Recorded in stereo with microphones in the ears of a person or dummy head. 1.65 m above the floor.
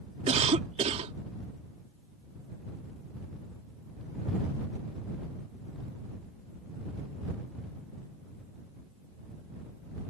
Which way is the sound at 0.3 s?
40° right (ahead or behind).